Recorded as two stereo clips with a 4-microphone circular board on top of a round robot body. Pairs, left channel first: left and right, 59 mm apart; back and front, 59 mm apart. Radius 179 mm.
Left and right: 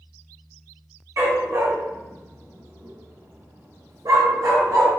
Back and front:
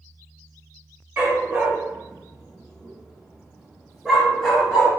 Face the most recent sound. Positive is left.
turn(degrees=-100)